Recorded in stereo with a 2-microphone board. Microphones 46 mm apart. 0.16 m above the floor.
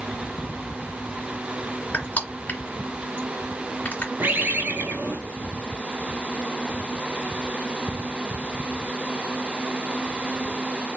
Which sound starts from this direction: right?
A bird, at 4.2 s.